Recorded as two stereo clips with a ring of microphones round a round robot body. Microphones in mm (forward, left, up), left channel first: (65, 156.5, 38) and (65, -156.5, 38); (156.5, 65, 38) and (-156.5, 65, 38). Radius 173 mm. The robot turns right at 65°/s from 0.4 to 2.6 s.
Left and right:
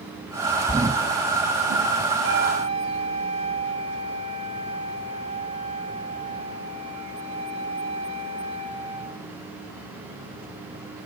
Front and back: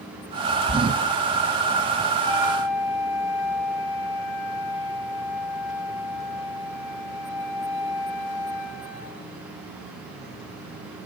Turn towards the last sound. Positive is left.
turn(degrees=-20)